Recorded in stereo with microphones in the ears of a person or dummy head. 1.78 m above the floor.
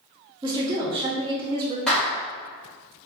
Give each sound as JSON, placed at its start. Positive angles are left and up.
{"t": 0.4, "sound": "a woman speaking", "side_deg": -20, "distance_m": 0.9}
{"t": 1.9, "sound": "a clap", "side_deg": 5, "distance_m": 1.9}